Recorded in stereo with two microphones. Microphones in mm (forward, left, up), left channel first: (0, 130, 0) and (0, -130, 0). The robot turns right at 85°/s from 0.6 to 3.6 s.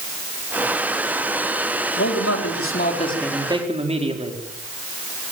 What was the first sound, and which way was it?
A man speaking, 65° left.